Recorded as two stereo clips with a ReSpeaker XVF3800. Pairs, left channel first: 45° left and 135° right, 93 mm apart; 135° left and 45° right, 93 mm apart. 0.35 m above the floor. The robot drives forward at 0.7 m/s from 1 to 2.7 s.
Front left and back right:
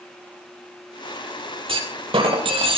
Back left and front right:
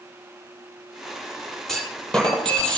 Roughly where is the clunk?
Behind right.